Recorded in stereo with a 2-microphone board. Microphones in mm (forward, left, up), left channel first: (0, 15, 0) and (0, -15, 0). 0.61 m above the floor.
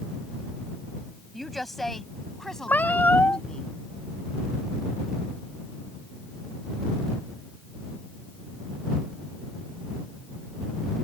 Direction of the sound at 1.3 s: 5° left (ahead or behind).